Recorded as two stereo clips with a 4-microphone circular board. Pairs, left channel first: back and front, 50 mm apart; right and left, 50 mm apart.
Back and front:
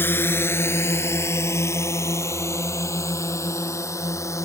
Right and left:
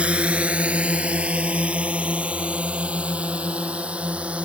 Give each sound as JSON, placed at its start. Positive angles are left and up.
{"t": 0.0, "sound": "a drone", "azimuth_deg": 150}